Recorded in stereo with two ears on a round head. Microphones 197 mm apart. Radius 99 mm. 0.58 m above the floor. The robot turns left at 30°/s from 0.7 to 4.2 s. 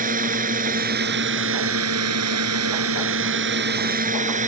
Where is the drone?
40° right; by 4.5 s 145° right.